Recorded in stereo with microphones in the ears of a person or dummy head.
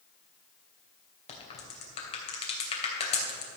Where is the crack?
35° left (ahead or behind), 3 m.